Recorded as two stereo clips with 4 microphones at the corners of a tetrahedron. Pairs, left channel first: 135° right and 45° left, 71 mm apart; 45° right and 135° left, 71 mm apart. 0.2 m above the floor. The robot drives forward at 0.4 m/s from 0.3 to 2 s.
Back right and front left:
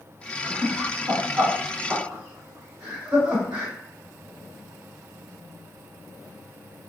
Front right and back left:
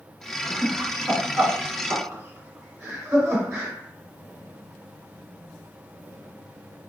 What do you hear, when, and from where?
0.4 s laughter: 65° left, 1.4 m; by 3.7 s 110° left, 1.4 m